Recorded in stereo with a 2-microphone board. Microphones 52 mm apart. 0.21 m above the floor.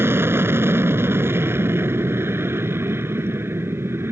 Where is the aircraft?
50° right (ahead or behind).